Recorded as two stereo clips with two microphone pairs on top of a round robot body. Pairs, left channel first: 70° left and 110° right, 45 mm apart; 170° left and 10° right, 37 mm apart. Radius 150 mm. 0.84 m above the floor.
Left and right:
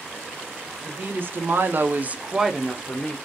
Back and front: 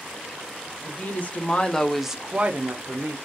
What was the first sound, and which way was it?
A woman speaking, 155° right.